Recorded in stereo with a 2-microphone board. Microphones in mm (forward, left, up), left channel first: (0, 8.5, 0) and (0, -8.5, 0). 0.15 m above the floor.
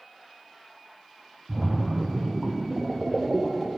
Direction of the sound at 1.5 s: 15° right (ahead or behind).